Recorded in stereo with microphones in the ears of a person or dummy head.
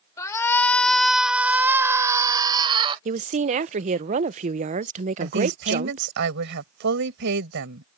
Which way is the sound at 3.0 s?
35° right (ahead or behind).